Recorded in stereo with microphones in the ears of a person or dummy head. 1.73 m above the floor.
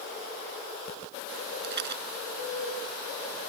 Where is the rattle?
60° right (ahead or behind).